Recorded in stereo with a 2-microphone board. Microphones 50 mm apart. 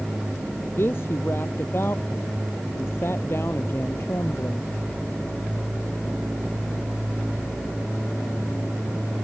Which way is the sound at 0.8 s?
55° left (ahead or behind).